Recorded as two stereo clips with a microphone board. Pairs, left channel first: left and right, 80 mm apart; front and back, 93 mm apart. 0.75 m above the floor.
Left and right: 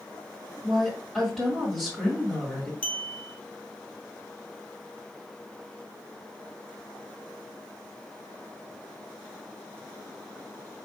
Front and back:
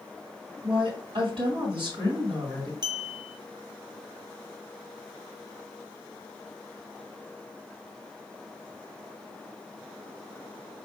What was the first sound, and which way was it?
A woman speaking, 175° right.